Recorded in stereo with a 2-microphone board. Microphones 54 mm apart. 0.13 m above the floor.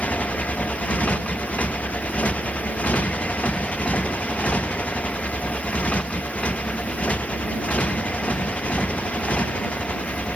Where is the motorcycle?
25° left (ahead or behind).